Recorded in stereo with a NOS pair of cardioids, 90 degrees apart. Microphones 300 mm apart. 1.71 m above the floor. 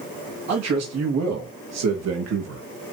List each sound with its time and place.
0.5 s a man speaking: 60° right, 3 m